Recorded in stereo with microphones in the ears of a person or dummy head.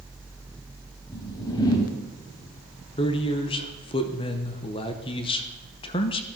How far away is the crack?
I don't hear a crack.